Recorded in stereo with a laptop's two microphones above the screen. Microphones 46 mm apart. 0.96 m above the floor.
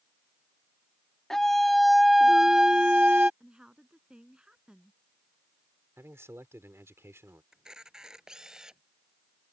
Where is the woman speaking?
20° right (ahead or behind).